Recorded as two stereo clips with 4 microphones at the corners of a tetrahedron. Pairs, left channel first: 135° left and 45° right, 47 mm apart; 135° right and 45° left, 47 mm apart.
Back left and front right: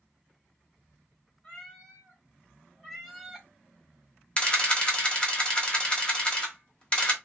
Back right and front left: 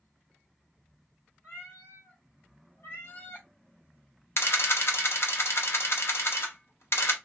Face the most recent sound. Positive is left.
turn(degrees=-160)